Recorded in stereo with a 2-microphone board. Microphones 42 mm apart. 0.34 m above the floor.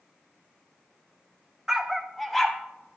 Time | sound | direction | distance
1.7 | a dog barking | 15° right (ahead or behind) | 0.5 m